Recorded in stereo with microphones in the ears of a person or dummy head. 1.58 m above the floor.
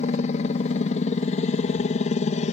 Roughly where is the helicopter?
Left.